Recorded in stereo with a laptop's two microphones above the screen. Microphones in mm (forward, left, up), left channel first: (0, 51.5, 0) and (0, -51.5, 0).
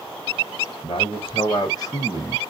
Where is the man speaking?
60° left (ahead or behind), 1.3 m; by 2.5 s 20° left (ahead or behind), 1.1 m.